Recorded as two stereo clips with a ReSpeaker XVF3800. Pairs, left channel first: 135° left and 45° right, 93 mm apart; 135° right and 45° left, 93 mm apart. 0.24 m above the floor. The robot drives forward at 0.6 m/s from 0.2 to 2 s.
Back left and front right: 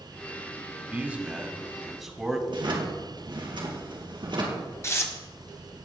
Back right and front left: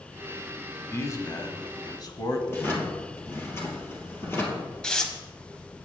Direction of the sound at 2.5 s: 70° right.